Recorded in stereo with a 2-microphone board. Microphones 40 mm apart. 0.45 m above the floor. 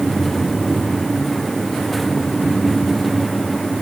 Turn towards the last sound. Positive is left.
No sound to turn to.